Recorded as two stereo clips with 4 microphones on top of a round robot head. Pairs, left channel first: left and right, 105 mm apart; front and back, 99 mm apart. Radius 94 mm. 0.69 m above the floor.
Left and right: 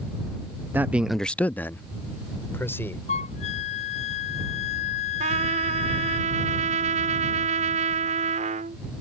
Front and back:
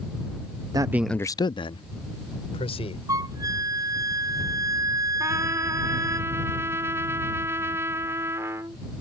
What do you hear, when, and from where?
0.7 s a man speaking: 155° right; by 3.0 s 20° left
3.1 s a flute: 125° left
5.2 s a trumpet: 110° right